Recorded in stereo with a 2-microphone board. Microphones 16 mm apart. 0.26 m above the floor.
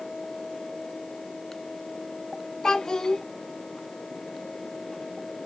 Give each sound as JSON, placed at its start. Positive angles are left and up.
{"t": 2.6, "sound": "a child speaking", "side_deg": 45, "distance_m": 1.3}